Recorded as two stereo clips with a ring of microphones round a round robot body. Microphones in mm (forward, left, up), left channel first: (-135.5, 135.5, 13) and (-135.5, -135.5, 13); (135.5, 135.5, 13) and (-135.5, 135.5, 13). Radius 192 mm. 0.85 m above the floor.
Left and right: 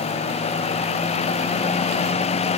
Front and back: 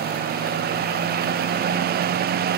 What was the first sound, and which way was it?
Only background noise.